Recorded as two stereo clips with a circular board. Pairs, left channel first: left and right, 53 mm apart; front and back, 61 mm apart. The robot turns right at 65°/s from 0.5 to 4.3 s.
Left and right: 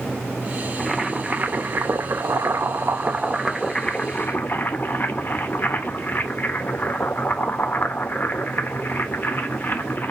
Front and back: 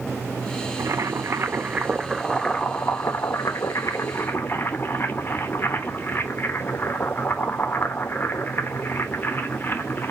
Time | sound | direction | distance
0.8 | boiling | straight behind | 0.7 m